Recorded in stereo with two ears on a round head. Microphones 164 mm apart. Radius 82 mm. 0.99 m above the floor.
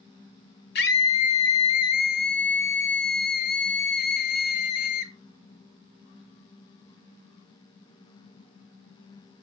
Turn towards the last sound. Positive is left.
turn(degrees=60)  # may be behind; listen again after turning